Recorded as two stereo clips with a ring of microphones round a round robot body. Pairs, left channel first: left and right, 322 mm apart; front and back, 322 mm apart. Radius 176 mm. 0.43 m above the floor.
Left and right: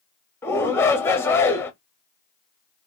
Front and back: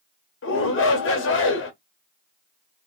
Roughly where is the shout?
Ahead.